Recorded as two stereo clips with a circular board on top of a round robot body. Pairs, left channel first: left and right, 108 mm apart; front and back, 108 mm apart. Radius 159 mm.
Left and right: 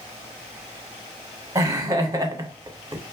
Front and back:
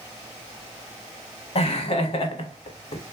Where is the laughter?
30° right, 0.9 m.